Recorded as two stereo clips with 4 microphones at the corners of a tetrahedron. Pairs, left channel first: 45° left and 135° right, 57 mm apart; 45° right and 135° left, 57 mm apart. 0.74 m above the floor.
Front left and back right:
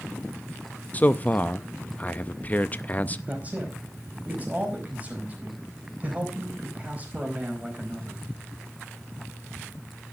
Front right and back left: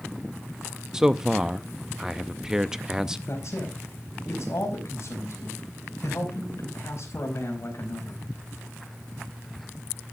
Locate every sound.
0.9 s a man speaking: 65° left, 0.5 m
3.3 s a man speaking: 75° right, 4.5 m